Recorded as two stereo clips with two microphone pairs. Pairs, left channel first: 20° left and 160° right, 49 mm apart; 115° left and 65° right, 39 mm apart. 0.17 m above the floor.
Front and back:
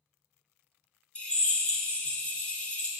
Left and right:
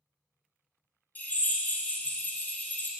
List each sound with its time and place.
1.1 s a drill: 85° left, 1.2 m